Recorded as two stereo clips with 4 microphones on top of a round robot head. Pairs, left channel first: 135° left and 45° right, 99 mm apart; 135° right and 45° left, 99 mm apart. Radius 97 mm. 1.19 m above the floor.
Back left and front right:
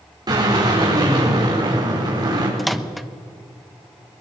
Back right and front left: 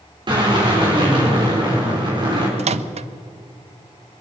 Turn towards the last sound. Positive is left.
turn(degrees=45)